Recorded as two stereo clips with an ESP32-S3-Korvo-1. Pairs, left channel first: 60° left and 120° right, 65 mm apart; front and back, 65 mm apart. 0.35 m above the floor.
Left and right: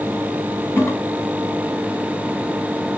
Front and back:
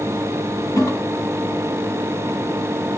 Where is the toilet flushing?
10° left, 1.0 m.